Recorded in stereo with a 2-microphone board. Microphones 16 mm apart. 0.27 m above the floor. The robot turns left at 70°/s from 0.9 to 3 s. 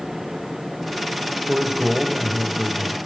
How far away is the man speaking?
About 1.1 m.